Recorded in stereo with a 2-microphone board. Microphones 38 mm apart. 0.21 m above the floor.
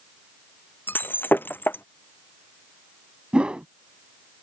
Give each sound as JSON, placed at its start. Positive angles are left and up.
{"t": 0.9, "sound": "breaking glass", "side_deg": 70}
{"t": 3.3, "sound": "a whoosh", "side_deg": -30}